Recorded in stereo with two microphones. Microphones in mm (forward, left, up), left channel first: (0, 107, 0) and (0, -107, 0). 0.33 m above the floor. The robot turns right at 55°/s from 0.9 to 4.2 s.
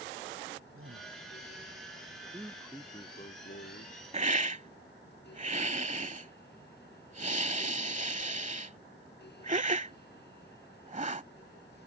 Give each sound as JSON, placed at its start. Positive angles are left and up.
{"t": 0.7, "sound": "a man speaking", "side_deg": -80}
{"t": 2.2, "sound": "a man speaking", "azimuth_deg": -25}
{"t": 4.1, "sound": "a hiss", "side_deg": -30}